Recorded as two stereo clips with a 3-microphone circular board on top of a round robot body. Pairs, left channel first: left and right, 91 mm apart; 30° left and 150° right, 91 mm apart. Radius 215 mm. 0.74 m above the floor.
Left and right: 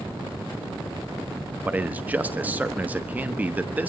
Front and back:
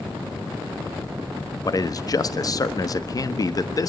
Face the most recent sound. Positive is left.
turn(degrees=-15)